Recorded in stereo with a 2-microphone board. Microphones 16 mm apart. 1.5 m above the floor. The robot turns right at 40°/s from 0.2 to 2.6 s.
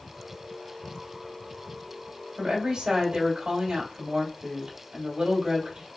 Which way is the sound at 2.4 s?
70° right (ahead or behind).